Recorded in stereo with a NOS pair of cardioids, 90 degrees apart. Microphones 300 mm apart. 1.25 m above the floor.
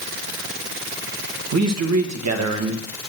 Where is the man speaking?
60° right, 1.5 m.